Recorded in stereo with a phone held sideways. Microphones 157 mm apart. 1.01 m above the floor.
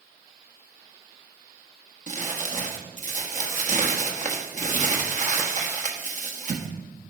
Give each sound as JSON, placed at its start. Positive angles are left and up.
{"t": 2.1, "sound": "crumpling", "side_deg": -50, "distance_m": 1.2}